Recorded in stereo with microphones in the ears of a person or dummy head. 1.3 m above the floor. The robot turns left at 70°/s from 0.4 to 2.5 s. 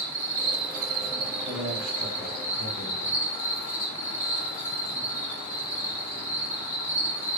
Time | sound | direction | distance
0.0 | an insect | 50° right | 1.9 m
1.4 | a man speaking | 150° right | 1.6 m